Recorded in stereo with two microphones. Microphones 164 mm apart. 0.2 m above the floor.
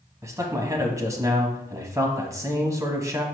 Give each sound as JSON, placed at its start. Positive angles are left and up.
{"t": 0.2, "sound": "a man speaking", "side_deg": -20, "distance_m": 1.1}